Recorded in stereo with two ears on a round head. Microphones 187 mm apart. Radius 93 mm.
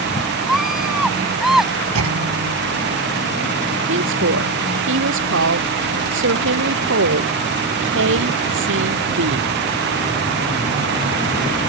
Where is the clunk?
80° right.